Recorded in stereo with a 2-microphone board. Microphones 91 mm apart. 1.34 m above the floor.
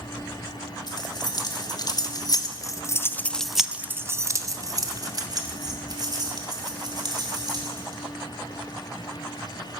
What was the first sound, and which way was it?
Keys jangling, 50° left (ahead or behind).